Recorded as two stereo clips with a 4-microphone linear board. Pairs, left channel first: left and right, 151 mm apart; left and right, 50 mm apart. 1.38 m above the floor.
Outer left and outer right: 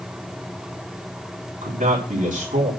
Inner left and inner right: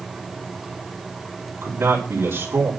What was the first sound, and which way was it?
A man speaking, 60° right (ahead or behind).